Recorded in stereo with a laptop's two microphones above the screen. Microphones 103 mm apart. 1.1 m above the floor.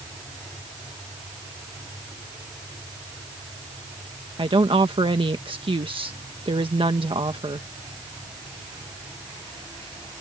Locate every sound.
4.4 s a woman speaking: 60° right (ahead or behind)